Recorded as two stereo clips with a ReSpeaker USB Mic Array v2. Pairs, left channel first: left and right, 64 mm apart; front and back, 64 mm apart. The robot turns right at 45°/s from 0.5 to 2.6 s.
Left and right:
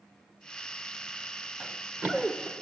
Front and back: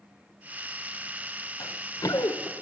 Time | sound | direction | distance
1.6 | running footsteps | 25° right | 1.4 m